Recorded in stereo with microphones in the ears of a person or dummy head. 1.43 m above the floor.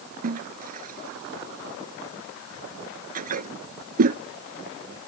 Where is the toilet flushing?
45° right (ahead or behind).